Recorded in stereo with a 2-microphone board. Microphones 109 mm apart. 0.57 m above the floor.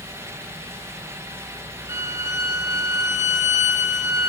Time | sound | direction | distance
1.9 | a violin | 25° right (ahead or behind) | 2.5 m